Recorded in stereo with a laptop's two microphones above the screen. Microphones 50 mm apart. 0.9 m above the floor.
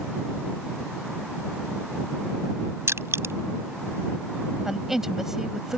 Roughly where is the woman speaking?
Centre.